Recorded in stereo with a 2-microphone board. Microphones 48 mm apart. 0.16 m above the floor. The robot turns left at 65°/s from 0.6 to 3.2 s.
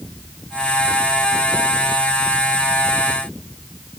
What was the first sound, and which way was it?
Only background noise.